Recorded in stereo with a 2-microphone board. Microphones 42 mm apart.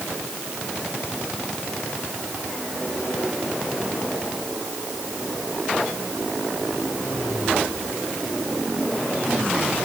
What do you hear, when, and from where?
Only background noise.